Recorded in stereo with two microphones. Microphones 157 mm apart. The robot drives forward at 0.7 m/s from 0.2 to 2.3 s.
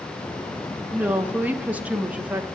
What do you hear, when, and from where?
0.9 s a woman speaking: 10° right (ahead or behind), 0.7 m; by 2.5 s 5° right (ahead or behind), 0.9 m